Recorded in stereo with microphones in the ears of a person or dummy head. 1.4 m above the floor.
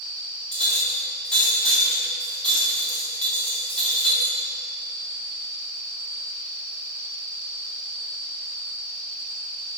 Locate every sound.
0.5 s a clink: 5° left (ahead or behind), 1.1 m